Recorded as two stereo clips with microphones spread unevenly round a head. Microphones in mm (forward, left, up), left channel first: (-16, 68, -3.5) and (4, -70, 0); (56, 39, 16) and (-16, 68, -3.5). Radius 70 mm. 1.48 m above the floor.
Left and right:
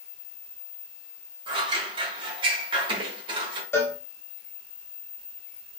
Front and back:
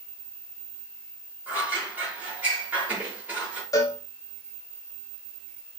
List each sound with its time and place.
1.5 s scissors: 115° right, 1.2 m
3.7 s a cowbell: 25° left, 0.8 m